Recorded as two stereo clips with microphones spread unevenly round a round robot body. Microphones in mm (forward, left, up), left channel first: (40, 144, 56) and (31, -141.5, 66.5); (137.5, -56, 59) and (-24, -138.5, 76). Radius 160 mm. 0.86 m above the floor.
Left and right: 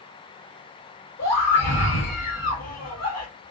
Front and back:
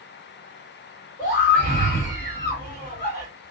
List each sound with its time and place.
1.2 s a scream: 65° left, 1.6 m